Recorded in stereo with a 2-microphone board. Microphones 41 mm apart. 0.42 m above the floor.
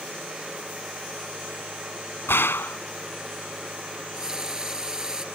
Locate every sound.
2.3 s a gunshot: 85° left
3.9 s a running tap: 15° right (ahead or behind)